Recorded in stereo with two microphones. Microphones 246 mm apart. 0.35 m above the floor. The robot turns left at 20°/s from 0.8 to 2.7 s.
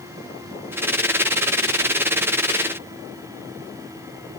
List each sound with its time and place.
Only background noise.